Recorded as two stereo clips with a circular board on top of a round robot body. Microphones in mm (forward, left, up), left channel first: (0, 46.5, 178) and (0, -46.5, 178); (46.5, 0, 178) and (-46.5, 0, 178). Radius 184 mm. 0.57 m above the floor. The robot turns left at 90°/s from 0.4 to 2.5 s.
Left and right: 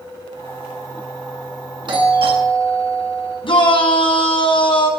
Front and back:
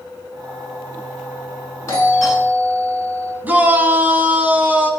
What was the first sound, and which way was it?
A doorbell, 60° right.